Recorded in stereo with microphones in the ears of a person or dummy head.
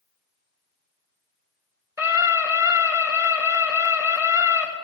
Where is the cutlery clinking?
I don't hear cutlery clinking.